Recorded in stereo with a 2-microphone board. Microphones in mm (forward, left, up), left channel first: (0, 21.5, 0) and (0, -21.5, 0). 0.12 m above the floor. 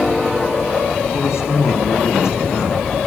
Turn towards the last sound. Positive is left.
turn(degrees=80)